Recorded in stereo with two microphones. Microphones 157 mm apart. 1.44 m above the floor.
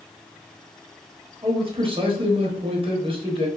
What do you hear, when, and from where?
1.4 s a man speaking: 35° right (ahead or behind), 0.8 m